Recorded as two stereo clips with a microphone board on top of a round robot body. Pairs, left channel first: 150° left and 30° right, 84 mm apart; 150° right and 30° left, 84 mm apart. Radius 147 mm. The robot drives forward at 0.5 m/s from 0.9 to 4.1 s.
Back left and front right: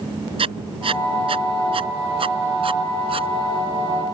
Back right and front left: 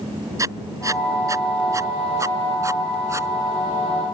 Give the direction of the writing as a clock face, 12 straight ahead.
1 o'clock.